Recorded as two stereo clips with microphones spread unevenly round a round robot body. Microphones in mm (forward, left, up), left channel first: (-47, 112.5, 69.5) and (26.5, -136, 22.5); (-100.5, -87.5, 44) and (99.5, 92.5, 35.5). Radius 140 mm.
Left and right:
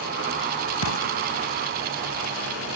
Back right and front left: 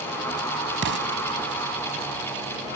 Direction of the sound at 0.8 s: 85° left.